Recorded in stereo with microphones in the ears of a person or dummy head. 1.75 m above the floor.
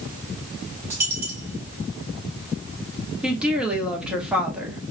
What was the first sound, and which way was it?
A dropped coin, 20° right (ahead or behind).